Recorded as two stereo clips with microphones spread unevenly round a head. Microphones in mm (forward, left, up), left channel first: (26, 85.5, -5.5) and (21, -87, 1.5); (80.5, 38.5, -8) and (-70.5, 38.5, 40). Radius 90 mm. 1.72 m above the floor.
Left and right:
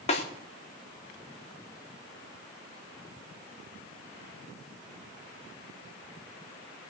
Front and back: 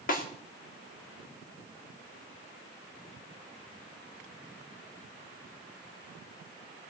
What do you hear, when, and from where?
0.1 s a snare drum: 35° left, 3.5 m